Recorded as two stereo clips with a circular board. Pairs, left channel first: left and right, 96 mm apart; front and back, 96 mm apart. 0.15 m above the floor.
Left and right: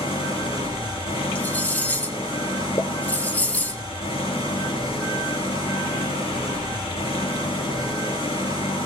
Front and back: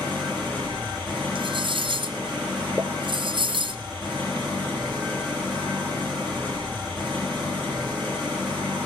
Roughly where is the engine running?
Left.